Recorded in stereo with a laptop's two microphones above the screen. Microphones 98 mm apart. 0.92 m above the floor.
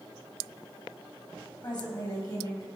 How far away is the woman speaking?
About 4.5 m.